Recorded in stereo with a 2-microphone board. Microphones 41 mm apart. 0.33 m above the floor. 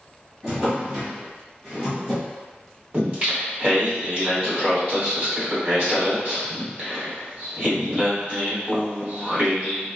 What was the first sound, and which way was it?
A drawer, 20° right (ahead or behind).